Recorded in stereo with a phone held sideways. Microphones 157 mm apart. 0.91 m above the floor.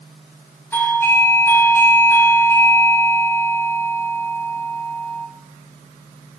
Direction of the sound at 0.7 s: 15° left (ahead or behind).